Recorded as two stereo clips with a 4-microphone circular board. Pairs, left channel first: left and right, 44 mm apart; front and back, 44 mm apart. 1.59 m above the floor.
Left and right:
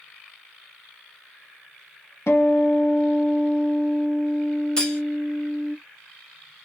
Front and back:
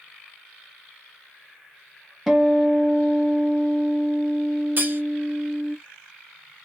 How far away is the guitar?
About 0.8 m.